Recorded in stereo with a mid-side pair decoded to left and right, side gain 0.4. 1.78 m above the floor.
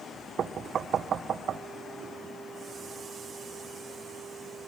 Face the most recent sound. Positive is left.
turn(degrees=-65)